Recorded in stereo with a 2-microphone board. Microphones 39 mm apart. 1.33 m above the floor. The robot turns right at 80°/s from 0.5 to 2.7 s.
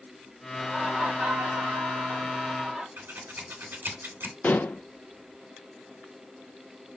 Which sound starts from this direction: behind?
Laughter, at 0.5 s.